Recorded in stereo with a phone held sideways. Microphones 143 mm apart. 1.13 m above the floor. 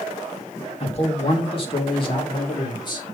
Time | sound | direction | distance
0.8 | a man speaking | 45° left (ahead or behind) | 2 m